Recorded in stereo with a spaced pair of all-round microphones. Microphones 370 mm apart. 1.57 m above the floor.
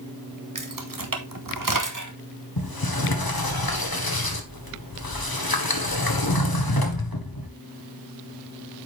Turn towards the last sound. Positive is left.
turn(degrees=70)  # may be behind; listen again after turning